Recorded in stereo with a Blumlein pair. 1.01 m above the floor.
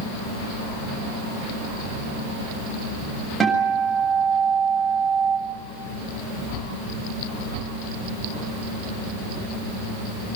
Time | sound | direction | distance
3.4 | a guitar | 15° right | 7.5 m